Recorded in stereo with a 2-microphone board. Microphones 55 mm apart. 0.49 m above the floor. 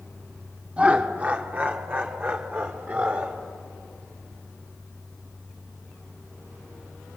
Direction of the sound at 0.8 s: 25° right (ahead or behind).